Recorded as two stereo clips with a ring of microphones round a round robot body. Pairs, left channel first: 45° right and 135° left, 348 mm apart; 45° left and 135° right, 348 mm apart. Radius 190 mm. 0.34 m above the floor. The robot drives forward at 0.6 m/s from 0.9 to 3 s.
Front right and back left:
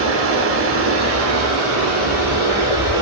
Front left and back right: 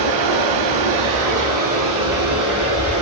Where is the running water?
170° right, 0.8 m; by 3.0 s 175° right, 2 m.